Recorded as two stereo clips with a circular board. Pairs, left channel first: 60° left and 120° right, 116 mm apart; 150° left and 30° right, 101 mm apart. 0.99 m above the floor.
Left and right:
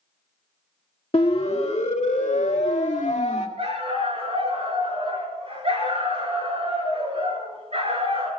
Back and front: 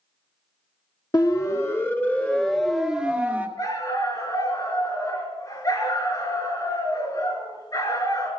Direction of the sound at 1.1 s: 100° left.